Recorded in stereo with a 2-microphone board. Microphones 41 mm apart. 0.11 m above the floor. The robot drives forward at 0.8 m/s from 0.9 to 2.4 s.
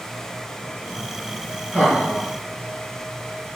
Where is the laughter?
20° left (ahead or behind), 1.8 m; by 2.3 s 15° left (ahead or behind), 2 m.